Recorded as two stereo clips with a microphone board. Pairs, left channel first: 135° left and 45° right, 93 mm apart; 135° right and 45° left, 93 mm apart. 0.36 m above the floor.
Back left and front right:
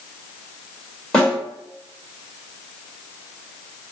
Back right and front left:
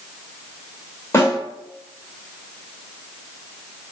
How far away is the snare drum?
About 1.4 m.